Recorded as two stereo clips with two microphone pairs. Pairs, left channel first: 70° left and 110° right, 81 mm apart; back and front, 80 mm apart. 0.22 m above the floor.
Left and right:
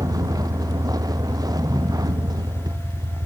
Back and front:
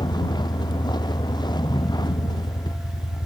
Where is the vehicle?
150° right.